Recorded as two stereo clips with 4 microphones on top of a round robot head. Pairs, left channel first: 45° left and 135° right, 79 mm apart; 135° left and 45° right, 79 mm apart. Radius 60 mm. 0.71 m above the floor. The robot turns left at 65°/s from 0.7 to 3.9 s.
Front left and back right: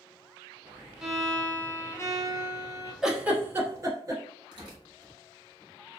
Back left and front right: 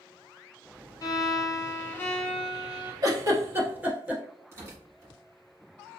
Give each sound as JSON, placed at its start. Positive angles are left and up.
{"t": 1.0, "sound": "a violin", "azimuth_deg": 145, "distance_m": 0.8}
{"t": 3.0, "sound": "a giggle", "azimuth_deg": -55, "distance_m": 1.1}
{"t": 4.5, "sound": "tearing paper", "azimuth_deg": -100, "distance_m": 1.4}